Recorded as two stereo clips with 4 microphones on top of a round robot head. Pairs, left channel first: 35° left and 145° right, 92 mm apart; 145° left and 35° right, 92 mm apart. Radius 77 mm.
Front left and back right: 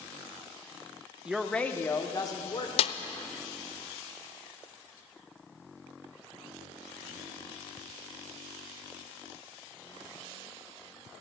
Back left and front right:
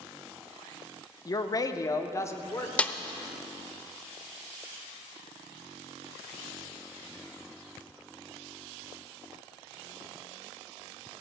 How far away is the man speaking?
About 0.9 m.